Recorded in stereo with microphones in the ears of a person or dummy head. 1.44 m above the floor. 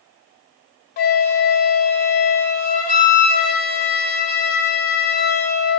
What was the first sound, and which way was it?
A flute, 45° left (ahead or behind).